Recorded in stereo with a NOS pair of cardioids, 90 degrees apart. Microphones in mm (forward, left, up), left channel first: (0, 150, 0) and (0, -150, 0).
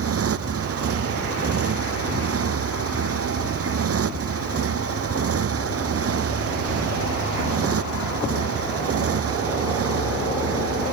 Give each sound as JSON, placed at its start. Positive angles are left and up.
{"t": 0.0, "sound": "a motorcycle", "azimuth_deg": -50}